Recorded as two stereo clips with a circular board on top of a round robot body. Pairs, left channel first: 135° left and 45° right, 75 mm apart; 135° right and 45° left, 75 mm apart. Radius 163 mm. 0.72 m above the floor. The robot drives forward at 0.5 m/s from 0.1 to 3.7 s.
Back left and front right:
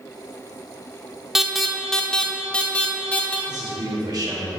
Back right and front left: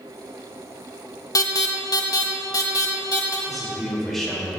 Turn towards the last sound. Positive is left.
turn(degrees=-50)